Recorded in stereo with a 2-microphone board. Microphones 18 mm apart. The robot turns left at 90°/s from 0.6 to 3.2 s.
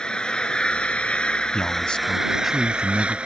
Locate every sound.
0.0 s an engine running: 125° left; by 3.3 s 110° right
1.5 s a man speaking: 80° left; by 3.2 s 70° right